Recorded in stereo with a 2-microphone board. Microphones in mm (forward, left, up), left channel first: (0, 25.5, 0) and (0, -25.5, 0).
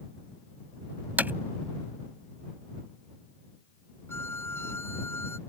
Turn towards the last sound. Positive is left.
turn(degrees=55)  # may be behind; listen again after turning